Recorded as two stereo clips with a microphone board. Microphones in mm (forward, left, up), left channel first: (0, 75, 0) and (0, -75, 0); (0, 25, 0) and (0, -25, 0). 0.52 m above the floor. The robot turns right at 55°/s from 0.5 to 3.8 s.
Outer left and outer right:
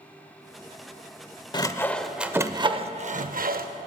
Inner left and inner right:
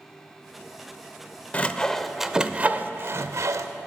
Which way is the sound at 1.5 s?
30° left (ahead or behind).